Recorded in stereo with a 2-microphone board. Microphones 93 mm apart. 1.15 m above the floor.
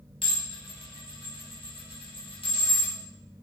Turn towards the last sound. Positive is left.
turn(degrees=75)  # may be behind; listen again after turning